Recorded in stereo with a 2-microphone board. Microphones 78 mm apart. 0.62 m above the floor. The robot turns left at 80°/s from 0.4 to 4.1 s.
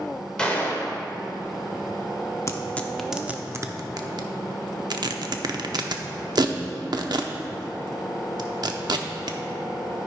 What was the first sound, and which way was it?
A gunshot, 170° left.